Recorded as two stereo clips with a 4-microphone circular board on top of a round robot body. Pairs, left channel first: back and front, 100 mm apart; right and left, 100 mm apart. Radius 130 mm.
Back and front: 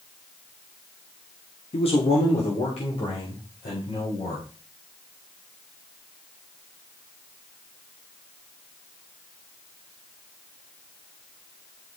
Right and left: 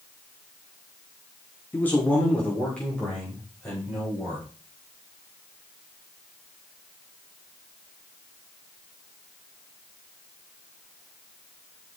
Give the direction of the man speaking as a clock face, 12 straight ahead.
5 o'clock.